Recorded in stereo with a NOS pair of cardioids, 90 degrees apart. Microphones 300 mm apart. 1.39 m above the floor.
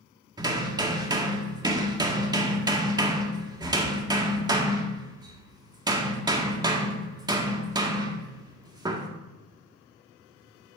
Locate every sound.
0.4 s hammering: 15° right, 1.7 m